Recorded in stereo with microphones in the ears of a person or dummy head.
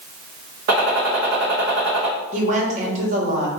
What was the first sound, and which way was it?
A gunshot, 60° right (ahead or behind).